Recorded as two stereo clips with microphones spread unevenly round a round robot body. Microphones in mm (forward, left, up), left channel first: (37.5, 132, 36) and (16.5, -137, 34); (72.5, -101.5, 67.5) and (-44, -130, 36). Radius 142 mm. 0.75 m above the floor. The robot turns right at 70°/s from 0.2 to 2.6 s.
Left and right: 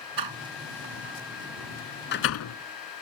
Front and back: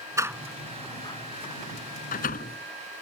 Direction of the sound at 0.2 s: 100° right.